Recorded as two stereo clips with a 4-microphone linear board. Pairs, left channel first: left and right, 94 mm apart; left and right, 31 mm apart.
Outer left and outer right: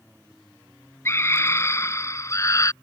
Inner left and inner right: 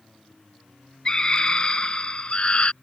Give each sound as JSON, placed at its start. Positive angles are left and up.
{"t": 1.1, "sound": "a scream", "side_deg": 25}